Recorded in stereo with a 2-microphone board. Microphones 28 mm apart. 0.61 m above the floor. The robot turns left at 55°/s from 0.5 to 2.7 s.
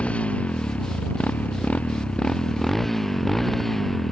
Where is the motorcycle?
50° left (ahead or behind); by 4.1 s 10° left (ahead or behind).